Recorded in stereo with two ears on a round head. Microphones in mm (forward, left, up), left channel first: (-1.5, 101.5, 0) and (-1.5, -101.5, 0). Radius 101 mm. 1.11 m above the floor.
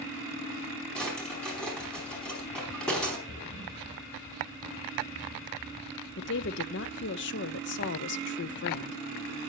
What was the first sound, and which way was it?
A drawer, 5° left (ahead or behind).